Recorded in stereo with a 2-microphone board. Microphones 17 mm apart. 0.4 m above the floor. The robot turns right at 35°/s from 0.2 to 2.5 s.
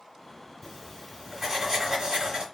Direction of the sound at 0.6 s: 170° left.